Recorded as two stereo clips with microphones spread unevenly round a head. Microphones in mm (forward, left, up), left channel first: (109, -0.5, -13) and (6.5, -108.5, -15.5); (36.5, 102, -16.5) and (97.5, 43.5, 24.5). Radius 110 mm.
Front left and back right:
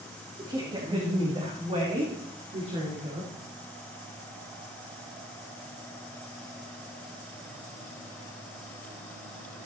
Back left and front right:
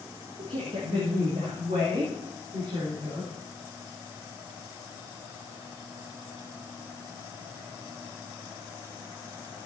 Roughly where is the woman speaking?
Right.